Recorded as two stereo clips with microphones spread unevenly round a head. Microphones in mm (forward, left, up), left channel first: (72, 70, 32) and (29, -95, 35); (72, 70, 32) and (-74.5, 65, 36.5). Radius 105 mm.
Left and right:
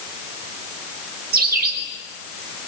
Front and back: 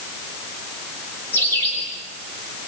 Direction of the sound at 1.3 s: 80° right.